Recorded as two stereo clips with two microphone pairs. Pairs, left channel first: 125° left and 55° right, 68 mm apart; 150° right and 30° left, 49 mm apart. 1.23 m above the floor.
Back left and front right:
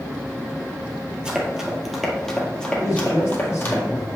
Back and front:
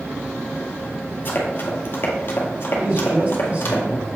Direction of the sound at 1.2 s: 130° right.